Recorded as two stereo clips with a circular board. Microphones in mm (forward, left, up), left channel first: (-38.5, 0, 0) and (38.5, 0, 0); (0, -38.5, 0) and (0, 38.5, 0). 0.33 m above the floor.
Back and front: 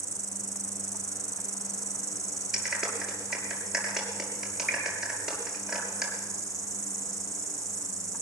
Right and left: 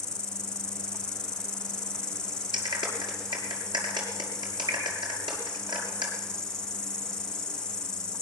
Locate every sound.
0.0 s an insect: 15° right, 0.8 m
2.5 s a clap: 85° left, 5.5 m